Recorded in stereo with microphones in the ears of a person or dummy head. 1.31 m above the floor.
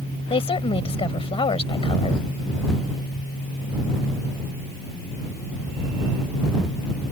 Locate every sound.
0.3 s a woman speaking: 25° left (ahead or behind)